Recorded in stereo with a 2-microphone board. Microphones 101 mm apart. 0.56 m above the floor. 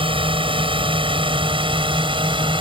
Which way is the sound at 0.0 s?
60° right (ahead or behind).